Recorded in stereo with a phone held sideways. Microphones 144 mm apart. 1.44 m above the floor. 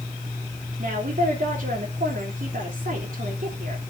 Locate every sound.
0.8 s a woman speaking: 65° right (ahead or behind), 3 m